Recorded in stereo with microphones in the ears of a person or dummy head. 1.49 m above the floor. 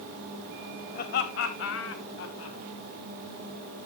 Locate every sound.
0.9 s laughter: 50° left (ahead or behind), 1.9 m; by 2.6 s 75° left (ahead or behind), 3 m